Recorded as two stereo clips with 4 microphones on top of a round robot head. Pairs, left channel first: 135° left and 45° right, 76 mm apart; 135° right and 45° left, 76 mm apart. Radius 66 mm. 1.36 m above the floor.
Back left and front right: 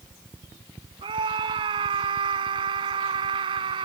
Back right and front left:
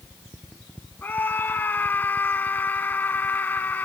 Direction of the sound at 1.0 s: 70° right.